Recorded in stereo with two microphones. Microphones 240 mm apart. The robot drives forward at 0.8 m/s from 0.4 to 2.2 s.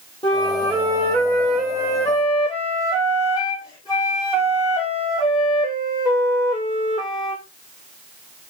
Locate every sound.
0.2 s a flute: 20° left (ahead or behind), 3 m; by 7.4 s 15° left (ahead or behind), 4.5 m